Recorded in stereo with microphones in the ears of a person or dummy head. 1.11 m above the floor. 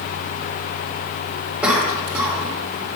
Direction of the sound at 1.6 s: 5° right (ahead or behind).